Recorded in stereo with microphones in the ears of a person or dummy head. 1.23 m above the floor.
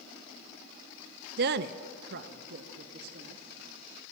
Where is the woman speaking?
50° right (ahead or behind), 0.8 m; by 3.4 s 55° right (ahead or behind), 2.5 m.